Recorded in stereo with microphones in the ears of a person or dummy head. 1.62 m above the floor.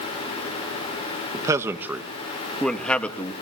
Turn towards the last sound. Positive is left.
turn(degrees=10)  # may be behind; listen again after turning